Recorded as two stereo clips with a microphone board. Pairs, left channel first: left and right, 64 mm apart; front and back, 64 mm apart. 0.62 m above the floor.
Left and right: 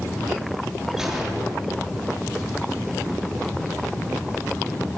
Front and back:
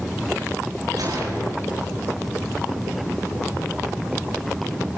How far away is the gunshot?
About 8.5 m.